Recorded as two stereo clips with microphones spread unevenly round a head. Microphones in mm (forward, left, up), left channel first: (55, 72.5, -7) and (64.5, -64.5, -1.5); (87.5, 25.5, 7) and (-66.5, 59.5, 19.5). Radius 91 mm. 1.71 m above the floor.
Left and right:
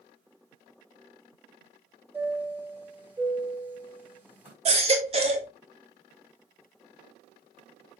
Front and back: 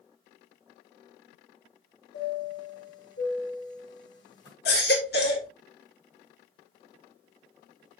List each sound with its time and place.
2.1 s a chime: 10° right, 5 m
4.7 s a baby crying: 50° right, 1.8 m